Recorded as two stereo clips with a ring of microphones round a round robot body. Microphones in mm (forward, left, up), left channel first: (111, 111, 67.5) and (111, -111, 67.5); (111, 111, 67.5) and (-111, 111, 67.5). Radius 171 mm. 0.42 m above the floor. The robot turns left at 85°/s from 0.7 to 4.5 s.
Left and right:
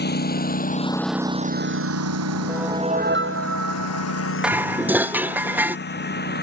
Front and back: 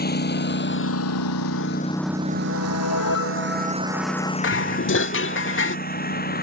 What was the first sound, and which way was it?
A lawn mower, 45° left.